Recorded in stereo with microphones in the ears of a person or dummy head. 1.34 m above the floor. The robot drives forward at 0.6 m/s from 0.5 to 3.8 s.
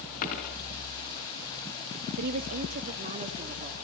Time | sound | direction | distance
0.2 | a dropped coin | 50° left (ahead or behind) | 5 m
2.2 | a woman speaking | 50° right (ahead or behind) | 1.5 m